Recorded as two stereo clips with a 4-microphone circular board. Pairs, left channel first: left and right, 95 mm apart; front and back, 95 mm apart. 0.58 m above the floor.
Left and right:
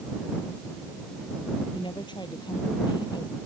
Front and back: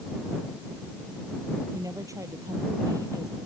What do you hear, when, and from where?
1.7 s a woman speaking: 125° left; by 3.4 s 130° left